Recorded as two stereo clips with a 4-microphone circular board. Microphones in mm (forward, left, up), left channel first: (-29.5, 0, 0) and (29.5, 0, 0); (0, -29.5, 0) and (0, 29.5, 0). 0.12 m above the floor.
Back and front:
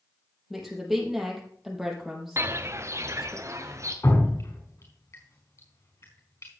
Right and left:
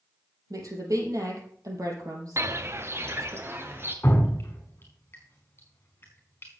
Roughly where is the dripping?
Behind right.